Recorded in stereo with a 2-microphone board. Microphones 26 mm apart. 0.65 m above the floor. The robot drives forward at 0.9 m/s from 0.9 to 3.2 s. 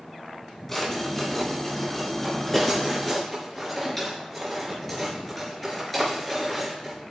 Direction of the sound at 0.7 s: 20° left (ahead or behind).